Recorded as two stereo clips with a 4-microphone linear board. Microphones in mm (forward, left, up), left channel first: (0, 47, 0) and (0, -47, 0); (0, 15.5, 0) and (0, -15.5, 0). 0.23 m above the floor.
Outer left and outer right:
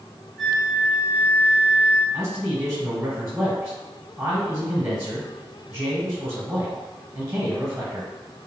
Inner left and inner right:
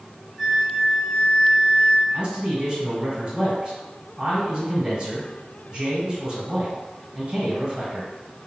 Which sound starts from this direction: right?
A man speaking, at 2.1 s.